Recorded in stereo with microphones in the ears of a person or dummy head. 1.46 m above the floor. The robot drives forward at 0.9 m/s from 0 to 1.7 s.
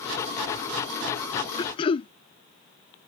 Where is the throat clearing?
25° left (ahead or behind); by 2.1 s 30° left (ahead or behind).